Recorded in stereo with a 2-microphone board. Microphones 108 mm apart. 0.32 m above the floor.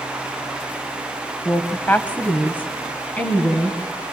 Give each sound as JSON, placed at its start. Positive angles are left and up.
{"t": 1.4, "sound": "a woman speaking", "side_deg": 20, "distance_m": 1.2}